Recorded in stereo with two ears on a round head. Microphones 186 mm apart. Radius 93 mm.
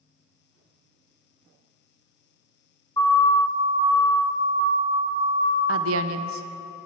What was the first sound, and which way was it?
A siren, 20° left (ahead or behind).